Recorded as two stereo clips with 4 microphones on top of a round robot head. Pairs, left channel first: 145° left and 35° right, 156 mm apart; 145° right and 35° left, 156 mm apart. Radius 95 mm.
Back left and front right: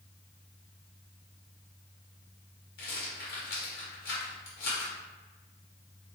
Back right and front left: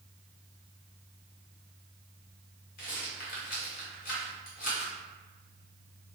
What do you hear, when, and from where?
2.8 s a rattle: straight behind, 1.7 m